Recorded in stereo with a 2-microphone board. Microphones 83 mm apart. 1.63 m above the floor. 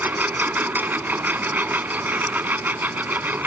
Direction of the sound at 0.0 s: 20° right (ahead or behind).